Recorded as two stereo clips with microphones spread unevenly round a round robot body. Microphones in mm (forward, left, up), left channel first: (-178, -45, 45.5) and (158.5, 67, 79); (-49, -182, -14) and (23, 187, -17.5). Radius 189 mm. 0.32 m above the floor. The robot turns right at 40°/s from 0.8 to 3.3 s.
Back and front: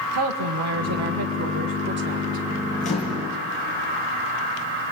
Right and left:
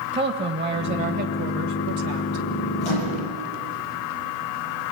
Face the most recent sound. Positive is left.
turn(degrees=-75)